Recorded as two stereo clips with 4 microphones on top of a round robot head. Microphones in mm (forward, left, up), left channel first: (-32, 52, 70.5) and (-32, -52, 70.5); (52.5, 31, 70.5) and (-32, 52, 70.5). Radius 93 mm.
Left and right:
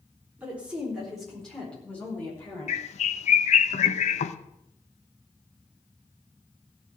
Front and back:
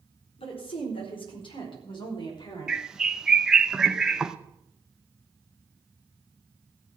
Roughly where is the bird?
Left.